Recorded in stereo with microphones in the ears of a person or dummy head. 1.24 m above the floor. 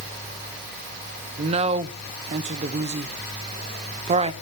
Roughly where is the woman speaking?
Right.